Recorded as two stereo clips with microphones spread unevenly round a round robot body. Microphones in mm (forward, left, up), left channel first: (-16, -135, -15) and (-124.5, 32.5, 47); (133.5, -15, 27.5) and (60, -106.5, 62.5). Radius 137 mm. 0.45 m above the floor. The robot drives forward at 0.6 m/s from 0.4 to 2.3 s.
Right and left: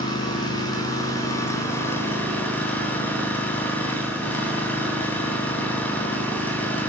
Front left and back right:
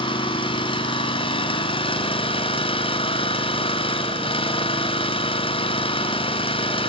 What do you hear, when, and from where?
0.0 s an engine running: 15° left, 3 m; by 6.9 s 20° left, 2 m